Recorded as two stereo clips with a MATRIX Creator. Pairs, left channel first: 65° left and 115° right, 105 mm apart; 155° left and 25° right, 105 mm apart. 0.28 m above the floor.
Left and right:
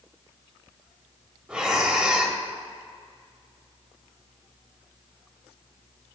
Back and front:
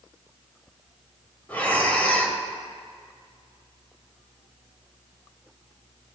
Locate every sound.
1.5 s breathing: 170° right, 1.1 m